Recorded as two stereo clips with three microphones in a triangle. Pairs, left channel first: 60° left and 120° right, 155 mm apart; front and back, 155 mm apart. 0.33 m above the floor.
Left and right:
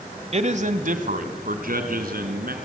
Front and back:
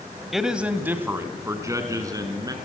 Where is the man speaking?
90° right, 1.3 m; by 2.5 s 115° right, 3.5 m.